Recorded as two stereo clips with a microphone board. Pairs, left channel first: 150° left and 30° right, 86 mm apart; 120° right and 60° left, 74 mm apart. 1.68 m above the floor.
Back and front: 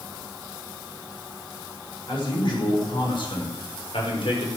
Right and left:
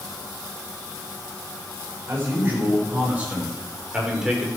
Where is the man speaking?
120° left, 6.5 m; by 4.5 s 145° left, 5.5 m.